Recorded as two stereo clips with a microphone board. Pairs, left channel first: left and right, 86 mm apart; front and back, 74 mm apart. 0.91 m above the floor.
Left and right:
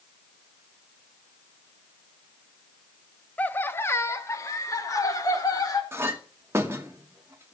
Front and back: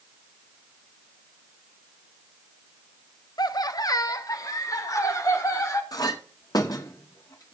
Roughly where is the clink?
Ahead right.